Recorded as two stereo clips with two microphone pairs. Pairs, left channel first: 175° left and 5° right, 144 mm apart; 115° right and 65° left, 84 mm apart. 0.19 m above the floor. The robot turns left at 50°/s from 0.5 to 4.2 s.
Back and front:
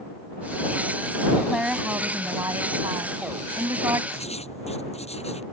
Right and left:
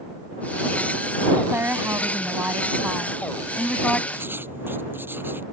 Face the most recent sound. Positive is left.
turn(degrees=130)